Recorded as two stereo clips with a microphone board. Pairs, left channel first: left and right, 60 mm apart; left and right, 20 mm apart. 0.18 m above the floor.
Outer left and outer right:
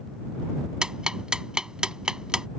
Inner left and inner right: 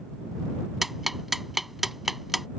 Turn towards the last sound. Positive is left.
turn(degrees=-10)  # may be behind; listen again after turning